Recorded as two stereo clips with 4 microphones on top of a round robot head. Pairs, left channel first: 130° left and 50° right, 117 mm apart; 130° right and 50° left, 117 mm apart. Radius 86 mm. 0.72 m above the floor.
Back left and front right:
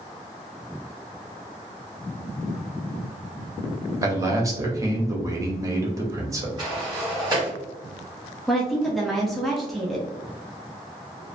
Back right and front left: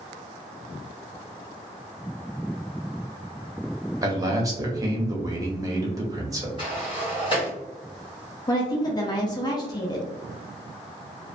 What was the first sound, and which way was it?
A man speaking, straight ahead.